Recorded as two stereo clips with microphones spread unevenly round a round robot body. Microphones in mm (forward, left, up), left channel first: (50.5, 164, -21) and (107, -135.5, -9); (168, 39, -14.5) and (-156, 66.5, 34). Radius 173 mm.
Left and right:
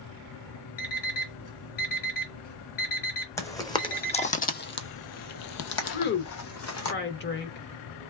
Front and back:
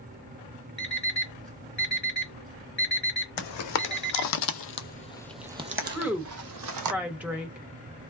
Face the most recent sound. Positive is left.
turn(degrees=80)